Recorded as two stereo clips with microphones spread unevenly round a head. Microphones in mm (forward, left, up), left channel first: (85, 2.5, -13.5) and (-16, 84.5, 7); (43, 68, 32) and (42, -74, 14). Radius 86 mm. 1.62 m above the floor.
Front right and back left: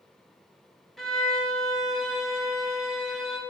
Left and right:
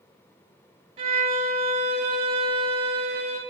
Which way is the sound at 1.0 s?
140° right.